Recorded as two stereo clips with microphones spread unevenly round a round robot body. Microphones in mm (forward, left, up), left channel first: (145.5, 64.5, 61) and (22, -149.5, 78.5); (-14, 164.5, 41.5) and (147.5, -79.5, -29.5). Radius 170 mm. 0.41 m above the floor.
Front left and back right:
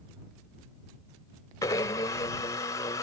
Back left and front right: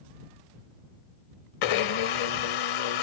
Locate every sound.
1.6 s a blender: 135° left